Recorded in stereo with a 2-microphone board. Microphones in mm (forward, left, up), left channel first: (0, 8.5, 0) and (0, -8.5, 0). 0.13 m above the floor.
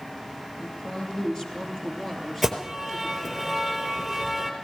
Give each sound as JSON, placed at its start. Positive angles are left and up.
{"t": 0.6, "sound": "a woman speaking", "side_deg": 40, "distance_m": 3.0}
{"t": 2.4, "sound": "an alarm", "side_deg": -5, "distance_m": 3.5}